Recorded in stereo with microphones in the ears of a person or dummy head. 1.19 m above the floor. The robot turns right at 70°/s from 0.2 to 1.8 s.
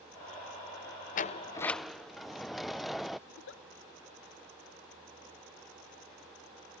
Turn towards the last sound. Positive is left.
turn(degrees=70)  # may be behind; listen again after turning